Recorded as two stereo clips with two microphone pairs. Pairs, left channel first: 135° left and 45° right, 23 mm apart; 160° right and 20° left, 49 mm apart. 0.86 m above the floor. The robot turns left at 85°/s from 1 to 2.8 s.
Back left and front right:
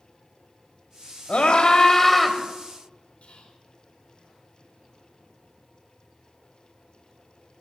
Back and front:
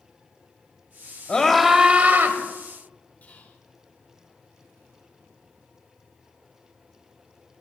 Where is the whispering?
145° left, 2.5 m.